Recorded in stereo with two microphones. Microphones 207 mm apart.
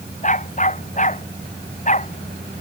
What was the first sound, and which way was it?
A dog barking, 35° left (ahead or behind).